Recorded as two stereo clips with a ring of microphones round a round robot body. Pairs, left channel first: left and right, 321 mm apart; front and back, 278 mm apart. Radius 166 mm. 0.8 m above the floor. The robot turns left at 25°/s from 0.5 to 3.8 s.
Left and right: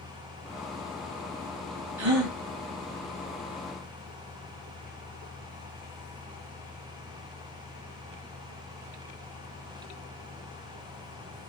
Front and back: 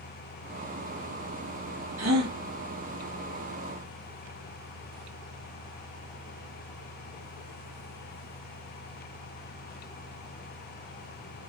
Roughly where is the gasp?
Behind right.